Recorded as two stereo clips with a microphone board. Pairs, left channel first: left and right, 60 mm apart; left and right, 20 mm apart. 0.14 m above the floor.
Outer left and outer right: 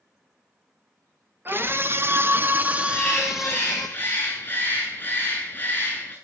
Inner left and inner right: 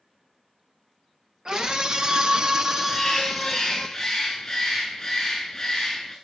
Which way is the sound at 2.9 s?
30° left (ahead or behind).